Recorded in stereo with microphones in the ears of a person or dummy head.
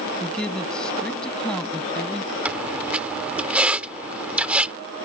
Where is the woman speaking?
10° left (ahead or behind).